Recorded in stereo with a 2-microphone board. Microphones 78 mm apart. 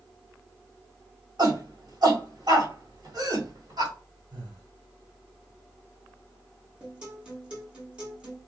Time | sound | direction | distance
1.4 | a shout | 60° right (ahead or behind) | 1.7 m
4.3 | breathing | 75° right (ahead or behind) | 1.5 m
6.8 | a guitar | 15° right (ahead or behind) | 1.2 m